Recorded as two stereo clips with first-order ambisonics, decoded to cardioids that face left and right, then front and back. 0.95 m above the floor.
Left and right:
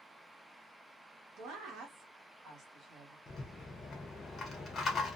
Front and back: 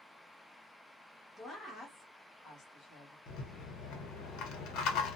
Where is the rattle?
25° left, 0.8 m.